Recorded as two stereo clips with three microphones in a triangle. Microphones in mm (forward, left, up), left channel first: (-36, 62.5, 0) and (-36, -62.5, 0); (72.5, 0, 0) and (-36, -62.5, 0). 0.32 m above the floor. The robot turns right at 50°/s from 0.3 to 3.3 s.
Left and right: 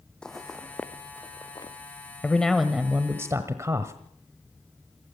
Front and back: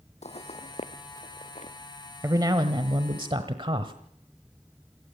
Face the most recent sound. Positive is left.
turn(degrees=-145)